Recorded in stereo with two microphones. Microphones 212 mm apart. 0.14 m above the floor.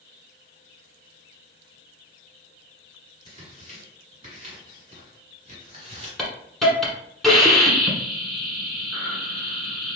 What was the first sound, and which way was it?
Tearing paper, 25° right (ahead or behind).